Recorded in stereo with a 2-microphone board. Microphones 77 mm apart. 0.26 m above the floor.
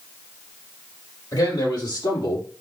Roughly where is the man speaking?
Left.